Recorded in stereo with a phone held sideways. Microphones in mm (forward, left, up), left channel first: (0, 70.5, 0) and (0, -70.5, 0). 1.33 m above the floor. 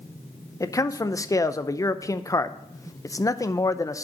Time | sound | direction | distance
0.6 | a man speaking | 25° left (ahead or behind) | 0.6 m